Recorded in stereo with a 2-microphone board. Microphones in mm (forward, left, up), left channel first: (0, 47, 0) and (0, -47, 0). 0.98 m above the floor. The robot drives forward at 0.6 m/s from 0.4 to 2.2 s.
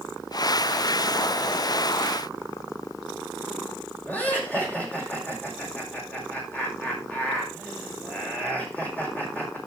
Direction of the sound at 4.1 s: 20° left (ahead or behind).